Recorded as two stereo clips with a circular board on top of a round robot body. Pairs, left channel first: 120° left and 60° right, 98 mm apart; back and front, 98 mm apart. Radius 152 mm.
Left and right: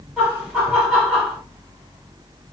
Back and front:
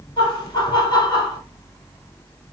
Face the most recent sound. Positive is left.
turn(degrees=-155)